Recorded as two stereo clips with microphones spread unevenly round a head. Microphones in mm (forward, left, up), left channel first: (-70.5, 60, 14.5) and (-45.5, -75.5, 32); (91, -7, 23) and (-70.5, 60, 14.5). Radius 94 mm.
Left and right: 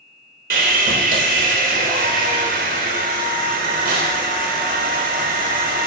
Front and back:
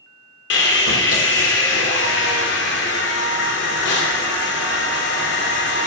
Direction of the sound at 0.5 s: 50° right.